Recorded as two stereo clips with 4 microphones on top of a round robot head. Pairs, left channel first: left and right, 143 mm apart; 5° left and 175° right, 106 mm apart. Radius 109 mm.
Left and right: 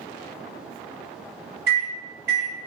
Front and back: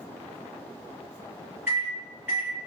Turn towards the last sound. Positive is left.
turn(degrees=-95)